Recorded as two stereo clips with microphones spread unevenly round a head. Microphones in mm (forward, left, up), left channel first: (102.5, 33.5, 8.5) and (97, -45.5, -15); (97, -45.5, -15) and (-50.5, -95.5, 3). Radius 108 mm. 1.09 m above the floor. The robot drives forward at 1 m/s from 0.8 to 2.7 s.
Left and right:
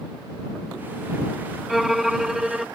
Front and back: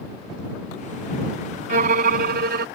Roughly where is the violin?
Behind.